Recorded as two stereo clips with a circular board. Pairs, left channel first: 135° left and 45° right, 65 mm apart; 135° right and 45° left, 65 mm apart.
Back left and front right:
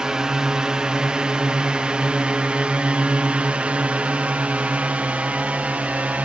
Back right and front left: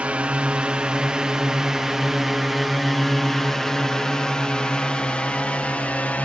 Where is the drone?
15° left; by 6.2 s 90° right.